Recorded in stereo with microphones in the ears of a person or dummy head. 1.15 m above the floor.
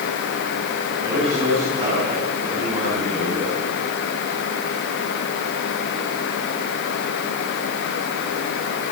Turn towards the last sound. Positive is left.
turn(degrees=-30)  # may be behind; listen again after turning